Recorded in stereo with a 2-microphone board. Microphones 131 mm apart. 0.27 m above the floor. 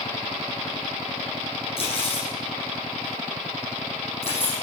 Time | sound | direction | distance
1.8 | cutlery clinking | 50° left (ahead or behind) | 5.5 m